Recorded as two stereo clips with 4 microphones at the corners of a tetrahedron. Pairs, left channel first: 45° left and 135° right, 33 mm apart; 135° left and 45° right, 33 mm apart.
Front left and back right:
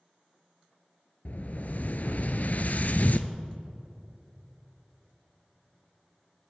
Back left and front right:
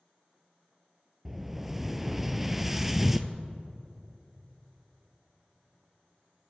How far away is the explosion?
About 0.6 m.